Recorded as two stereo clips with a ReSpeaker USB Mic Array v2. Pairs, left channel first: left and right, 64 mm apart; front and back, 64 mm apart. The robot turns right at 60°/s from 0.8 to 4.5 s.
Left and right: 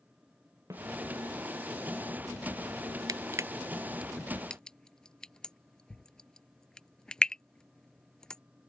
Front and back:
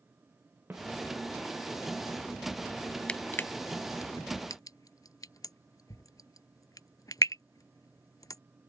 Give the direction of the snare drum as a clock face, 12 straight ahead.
4 o'clock.